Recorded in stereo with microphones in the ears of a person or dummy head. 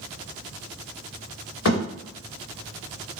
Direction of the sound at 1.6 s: 60° left (ahead or behind).